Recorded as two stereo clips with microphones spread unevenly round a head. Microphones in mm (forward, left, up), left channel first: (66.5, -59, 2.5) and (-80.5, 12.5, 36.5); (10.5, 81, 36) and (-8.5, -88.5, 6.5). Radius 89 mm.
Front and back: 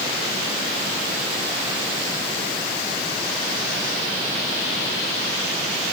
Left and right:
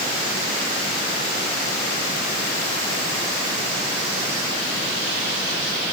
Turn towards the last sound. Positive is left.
No sound to turn to.